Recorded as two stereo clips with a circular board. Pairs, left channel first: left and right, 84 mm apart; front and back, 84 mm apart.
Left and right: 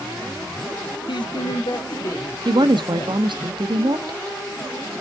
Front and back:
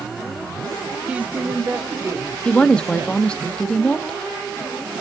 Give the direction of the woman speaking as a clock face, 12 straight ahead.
3 o'clock.